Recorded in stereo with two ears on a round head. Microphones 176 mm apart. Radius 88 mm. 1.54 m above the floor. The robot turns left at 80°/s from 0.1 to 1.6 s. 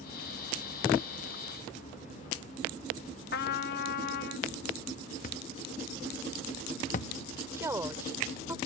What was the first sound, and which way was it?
A trumpet, 50° left (ahead or behind).